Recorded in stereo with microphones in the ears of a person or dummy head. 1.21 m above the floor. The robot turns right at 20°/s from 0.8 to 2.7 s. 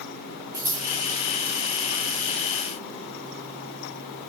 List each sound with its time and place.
0.5 s scissors: 15° right (ahead or behind), 5 m